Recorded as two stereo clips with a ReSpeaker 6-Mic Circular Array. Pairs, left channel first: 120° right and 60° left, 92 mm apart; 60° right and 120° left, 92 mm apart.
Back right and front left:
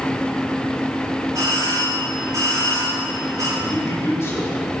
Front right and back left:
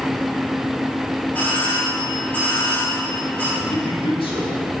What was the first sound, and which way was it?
A doorbell, 10° left.